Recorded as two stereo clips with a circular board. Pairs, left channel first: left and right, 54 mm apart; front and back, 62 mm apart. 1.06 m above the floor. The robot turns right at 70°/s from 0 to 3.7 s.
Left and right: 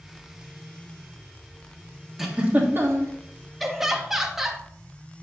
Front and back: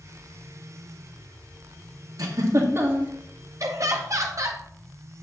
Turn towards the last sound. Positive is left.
turn(degrees=-175)